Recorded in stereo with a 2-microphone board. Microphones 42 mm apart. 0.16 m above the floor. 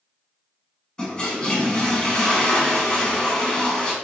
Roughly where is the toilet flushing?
Left.